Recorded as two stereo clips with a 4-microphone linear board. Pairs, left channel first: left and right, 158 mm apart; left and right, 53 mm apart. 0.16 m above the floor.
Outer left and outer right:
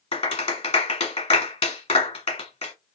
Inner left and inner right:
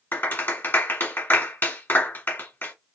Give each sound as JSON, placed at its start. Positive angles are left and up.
{"t": 0.1, "sound": "a clap", "side_deg": 40, "distance_m": 1.5}